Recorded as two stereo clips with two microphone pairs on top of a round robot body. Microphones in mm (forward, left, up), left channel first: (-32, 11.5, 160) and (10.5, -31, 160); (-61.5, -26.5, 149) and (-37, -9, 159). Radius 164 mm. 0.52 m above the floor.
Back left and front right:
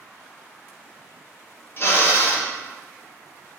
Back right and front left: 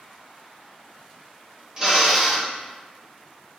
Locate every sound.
1.8 s a drill: 100° left, 2.5 m